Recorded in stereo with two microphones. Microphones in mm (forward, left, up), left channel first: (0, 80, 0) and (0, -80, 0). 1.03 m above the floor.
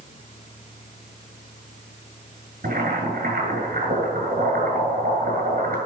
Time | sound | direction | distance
2.6 | boiling | 80° right | 7.5 m